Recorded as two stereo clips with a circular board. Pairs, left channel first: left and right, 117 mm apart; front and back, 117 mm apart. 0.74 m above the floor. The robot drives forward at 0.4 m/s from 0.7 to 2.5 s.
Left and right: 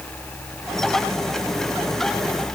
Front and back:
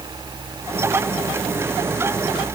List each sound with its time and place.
Only background noise.